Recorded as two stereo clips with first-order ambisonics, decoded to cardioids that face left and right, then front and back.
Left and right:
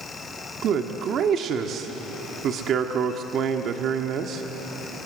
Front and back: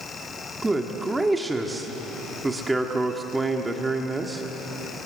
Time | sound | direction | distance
0.6 | a man speaking | 100° right | 1.3 m